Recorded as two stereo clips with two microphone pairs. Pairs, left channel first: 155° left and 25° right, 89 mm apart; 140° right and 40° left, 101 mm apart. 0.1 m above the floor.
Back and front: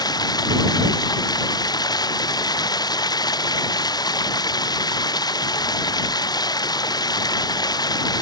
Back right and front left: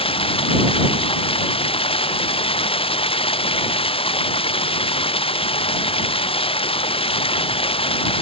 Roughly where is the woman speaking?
No woman speaking in this recording.